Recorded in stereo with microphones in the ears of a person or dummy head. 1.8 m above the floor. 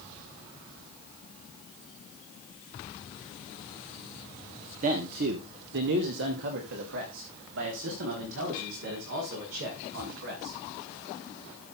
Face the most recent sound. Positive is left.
turn(degrees=-80)